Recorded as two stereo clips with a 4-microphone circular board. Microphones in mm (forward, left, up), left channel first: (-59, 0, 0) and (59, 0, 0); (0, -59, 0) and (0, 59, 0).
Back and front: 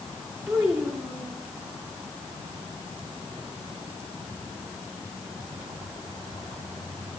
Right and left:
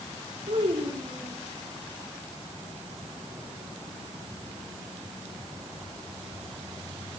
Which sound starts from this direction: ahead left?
A child speaking, at 0.5 s.